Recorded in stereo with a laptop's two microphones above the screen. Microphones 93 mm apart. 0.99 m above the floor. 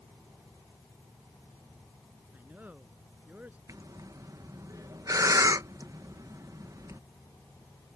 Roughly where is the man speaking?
Centre.